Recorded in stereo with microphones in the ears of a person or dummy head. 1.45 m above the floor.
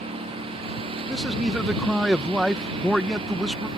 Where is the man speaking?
Centre (ahead or behind).